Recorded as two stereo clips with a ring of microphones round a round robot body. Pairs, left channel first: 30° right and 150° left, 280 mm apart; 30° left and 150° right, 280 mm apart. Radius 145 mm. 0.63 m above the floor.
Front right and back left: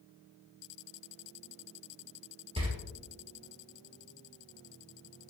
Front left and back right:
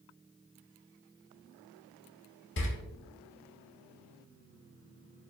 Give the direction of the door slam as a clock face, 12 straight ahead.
9 o'clock.